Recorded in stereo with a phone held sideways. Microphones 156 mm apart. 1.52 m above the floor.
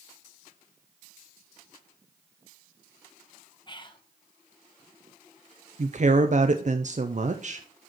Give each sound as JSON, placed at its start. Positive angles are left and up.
{"t": 3.7, "sound": "whispering", "side_deg": 30, "distance_m": 1.1}
{"t": 5.8, "sound": "a woman speaking", "side_deg": -50, "distance_m": 0.6}